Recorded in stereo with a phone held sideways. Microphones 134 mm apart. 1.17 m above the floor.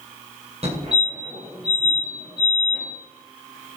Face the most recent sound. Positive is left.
turn(degrees=-50)  # may be behind; listen again after turning